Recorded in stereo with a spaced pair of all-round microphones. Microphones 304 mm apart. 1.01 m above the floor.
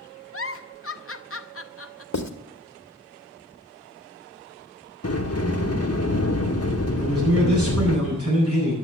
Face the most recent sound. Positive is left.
turn(degrees=-50)  # may be behind; listen again after turning